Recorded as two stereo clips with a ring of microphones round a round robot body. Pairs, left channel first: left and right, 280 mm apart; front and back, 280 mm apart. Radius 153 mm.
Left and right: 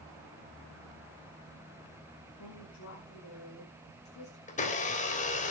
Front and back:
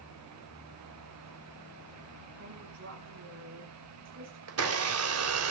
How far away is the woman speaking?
About 8 m.